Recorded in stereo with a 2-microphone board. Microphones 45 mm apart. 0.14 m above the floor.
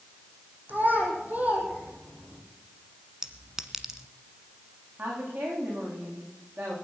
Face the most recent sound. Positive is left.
turn(degrees=-45)  # may be behind; listen again after turning